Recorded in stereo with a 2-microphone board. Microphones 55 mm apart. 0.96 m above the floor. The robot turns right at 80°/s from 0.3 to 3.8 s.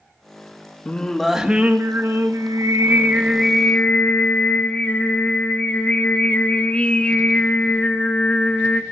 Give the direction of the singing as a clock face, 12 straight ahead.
7 o'clock.